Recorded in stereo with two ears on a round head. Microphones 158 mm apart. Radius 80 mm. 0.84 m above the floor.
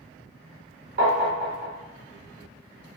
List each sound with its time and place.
1.0 s tapping: 55° right (ahead or behind), 1.3 m